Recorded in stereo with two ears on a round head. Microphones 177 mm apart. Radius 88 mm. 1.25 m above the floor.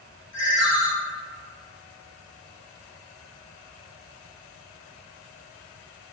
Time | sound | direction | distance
0.3 | a ringtone | 70° left (ahead or behind) | 2.0 m